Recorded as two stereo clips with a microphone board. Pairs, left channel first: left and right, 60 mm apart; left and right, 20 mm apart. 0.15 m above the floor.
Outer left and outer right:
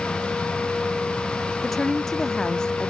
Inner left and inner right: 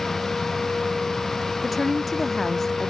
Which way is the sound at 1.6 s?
5° left (ahead or behind).